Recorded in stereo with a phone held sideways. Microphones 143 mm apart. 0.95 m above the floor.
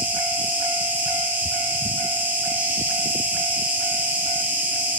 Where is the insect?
10° right (ahead or behind), 0.9 m.